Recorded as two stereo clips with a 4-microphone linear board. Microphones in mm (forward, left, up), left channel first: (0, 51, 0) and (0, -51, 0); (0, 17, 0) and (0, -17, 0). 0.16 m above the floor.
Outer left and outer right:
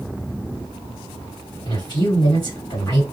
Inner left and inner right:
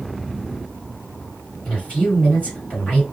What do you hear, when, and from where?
1.6 s a man speaking: 45° left (ahead or behind), 1.9 m